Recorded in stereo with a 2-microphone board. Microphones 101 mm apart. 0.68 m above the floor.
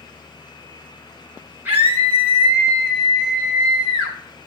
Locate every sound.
1.6 s a scream: 20° right (ahead or behind), 4.5 m; by 4.2 s 5° right (ahead or behind), 4.5 m